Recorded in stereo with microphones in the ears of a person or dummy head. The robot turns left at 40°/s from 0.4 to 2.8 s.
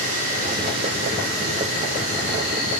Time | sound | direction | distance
0.0 | an insect | 45° right | 8.5 m